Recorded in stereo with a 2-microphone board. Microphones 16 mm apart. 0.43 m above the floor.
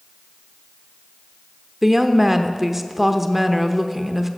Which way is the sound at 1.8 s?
15° right (ahead or behind).